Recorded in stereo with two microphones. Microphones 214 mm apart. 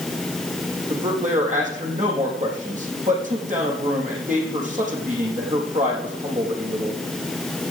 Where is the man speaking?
35° right (ahead or behind), 4.5 m.